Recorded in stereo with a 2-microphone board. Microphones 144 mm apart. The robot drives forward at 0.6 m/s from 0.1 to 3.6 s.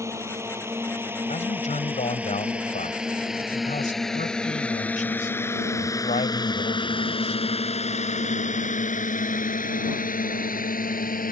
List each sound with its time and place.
0.0 s a drone: 20° right (ahead or behind); by 11.3 s 80° left
1.3 s a man speaking: 55° left (ahead or behind); by 7.4 s 65° left (ahead or behind)